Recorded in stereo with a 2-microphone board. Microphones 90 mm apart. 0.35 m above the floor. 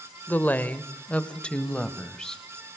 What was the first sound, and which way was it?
A woman speaking, 20° left (ahead or behind).